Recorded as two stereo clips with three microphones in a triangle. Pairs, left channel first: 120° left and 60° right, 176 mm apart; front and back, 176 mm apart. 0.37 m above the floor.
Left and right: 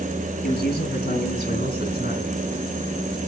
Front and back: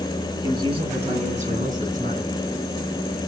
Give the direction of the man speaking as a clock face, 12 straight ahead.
8 o'clock.